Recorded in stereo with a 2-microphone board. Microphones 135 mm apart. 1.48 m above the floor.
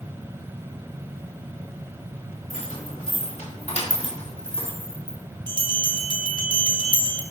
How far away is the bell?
About 1.2 m.